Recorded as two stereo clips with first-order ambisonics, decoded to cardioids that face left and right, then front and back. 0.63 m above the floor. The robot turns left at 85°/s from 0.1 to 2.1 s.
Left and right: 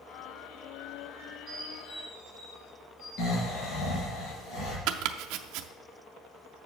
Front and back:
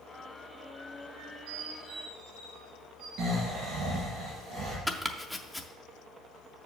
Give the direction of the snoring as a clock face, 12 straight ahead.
8 o'clock.